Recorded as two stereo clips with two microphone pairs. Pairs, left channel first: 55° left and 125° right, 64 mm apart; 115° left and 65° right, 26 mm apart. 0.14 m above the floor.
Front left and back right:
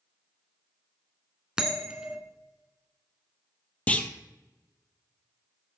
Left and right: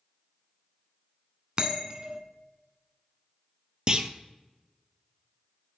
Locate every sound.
1.6 s a bell: 60° right, 0.7 m
3.9 s a clunk: 10° right, 0.5 m